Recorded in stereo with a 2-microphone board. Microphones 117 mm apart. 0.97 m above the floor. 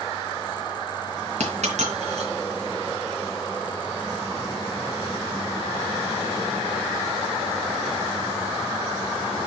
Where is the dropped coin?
75° right (ahead or behind), 2.5 m.